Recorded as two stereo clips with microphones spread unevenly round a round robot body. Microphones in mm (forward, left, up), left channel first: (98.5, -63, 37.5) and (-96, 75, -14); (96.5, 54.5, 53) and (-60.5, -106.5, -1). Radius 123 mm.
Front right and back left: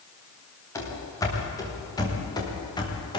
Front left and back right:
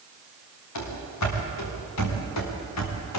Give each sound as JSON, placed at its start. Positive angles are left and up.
{"t": 0.8, "sound": "running footsteps", "azimuth_deg": 45, "distance_m": 7.5}